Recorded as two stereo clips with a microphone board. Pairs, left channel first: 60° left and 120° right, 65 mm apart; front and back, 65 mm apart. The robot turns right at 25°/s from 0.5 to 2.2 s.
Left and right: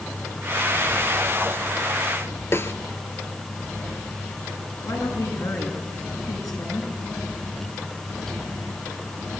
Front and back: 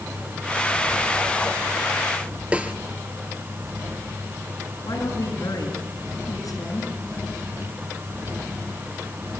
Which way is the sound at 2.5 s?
110° left.